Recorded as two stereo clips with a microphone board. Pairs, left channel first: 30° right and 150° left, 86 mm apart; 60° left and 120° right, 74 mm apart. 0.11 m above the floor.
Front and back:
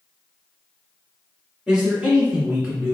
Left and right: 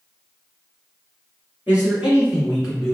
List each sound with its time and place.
1.7 s a man speaking: 150° right, 1.7 m; by 2.9 s 145° left, 1.6 m